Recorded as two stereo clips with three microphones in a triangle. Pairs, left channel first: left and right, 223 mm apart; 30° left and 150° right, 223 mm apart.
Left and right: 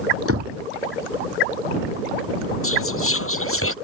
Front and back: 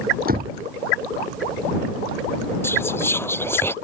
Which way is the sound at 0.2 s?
100° right.